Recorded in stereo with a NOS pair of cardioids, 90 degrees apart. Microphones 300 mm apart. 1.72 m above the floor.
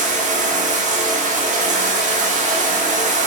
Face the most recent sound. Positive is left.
turn(degrees=-25)